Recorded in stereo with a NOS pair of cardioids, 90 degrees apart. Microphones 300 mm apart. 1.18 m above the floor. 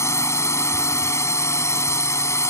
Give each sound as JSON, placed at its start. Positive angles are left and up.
{"t": 0.0, "sound": "a drone", "azimuth_deg": 10}